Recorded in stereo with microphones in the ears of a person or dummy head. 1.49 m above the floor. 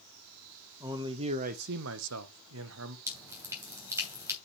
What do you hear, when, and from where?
0.8 s a man speaking: 10° right (ahead or behind), 0.6 m; by 3.0 s 75° right (ahead or behind), 0.9 m
3.1 s dripping: 20° right (ahead or behind), 2.5 m